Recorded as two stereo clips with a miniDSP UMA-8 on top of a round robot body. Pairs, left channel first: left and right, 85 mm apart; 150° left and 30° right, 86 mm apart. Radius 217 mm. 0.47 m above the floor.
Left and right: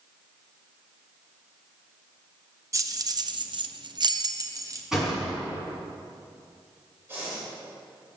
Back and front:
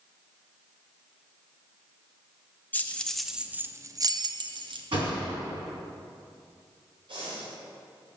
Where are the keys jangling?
140° right, 0.9 m; by 4.9 s 35° right, 1.1 m.